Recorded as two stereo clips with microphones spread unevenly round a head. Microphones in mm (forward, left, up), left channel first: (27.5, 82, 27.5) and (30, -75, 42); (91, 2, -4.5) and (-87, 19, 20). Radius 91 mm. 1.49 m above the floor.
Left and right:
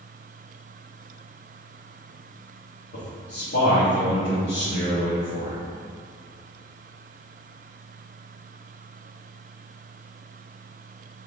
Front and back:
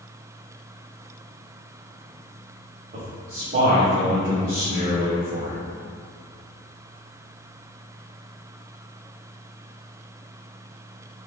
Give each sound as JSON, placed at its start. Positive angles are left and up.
{"t": 2.9, "sound": "a man speaking", "azimuth_deg": 125, "distance_m": 0.9}